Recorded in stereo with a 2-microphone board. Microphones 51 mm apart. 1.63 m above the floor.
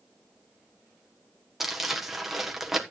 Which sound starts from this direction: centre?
Crumpling, at 1.6 s.